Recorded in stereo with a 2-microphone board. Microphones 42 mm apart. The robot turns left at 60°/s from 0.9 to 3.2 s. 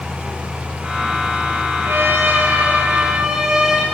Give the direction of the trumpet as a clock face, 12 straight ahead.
3 o'clock.